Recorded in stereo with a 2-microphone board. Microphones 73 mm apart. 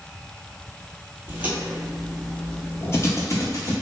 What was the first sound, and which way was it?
Footsteps, 25° right (ahead or behind).